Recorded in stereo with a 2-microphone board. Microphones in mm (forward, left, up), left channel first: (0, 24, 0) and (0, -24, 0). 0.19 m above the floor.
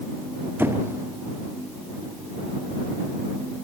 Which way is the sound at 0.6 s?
50° right (ahead or behind).